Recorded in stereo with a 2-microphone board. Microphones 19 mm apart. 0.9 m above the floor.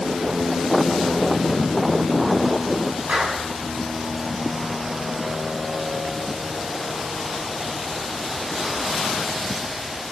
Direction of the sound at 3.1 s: 75° right (ahead or behind).